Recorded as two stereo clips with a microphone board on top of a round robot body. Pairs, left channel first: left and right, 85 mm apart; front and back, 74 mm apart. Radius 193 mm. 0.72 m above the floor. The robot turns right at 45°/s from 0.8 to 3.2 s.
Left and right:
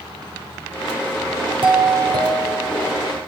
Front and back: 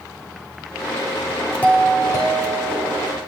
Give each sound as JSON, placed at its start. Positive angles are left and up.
{"t": 1.6, "sound": "a doorbell", "azimuth_deg": -75, "distance_m": 8.5}